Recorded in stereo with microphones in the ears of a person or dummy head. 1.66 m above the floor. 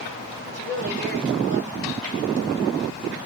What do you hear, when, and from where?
0.5 s a woman speaking: 50° right (ahead or behind), 6.5 m